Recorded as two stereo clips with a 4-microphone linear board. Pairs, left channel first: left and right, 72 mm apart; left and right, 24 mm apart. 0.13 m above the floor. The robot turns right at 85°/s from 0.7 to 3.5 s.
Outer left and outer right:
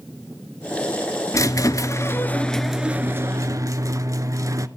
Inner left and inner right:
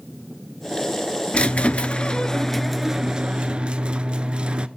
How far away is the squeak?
About 0.6 m.